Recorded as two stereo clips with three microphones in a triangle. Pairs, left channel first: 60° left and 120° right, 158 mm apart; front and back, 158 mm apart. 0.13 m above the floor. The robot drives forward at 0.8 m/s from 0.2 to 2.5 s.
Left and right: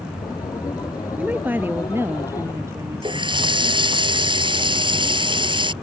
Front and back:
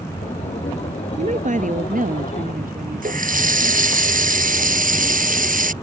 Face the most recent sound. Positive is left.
turn(degrees=-175)